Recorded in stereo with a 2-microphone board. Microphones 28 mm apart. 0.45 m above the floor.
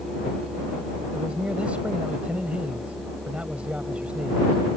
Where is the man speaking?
45° right (ahead or behind).